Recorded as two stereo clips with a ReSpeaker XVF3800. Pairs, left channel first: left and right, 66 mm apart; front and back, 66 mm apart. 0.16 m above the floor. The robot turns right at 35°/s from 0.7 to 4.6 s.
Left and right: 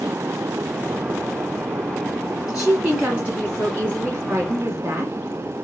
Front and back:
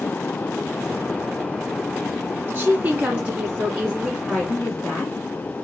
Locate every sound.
2.5 s a woman speaking: 165° right, 1.8 m; by 5.1 s 95° right, 1.8 m